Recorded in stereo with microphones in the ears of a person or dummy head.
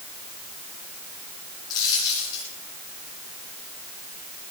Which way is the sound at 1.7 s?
25° left (ahead or behind).